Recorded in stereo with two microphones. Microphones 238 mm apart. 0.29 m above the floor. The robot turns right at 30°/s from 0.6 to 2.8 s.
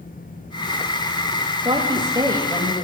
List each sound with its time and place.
1.6 s a woman speaking: 20° right (ahead or behind), 0.9 m; by 2.8 s 10° right (ahead or behind), 0.9 m